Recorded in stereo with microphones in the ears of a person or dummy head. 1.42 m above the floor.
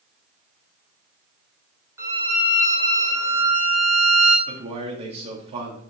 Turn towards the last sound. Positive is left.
turn(degrees=-35)  # may be behind; listen again after turning